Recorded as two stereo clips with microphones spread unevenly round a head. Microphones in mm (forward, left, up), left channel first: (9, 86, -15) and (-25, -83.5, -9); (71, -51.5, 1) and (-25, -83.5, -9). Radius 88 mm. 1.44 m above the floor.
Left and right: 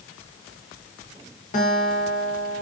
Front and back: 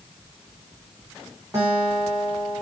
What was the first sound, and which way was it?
A guitar, 125° left.